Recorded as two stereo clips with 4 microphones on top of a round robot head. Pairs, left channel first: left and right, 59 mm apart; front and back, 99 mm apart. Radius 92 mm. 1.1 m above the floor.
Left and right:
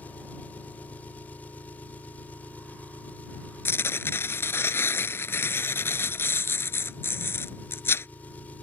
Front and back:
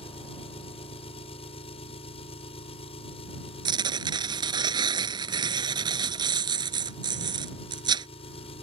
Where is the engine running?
20° left.